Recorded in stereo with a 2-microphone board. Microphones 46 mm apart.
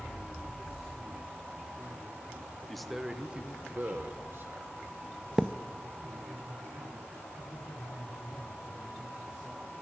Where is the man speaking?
5° left (ahead or behind), 0.9 m; by 4.8 s 60° right (ahead or behind), 1.4 m.